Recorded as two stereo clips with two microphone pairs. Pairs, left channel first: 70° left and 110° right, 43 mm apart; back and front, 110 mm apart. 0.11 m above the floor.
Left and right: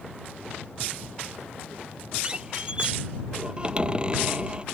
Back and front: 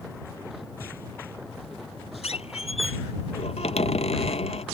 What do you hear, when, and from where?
2.2 s a squeak: 175° right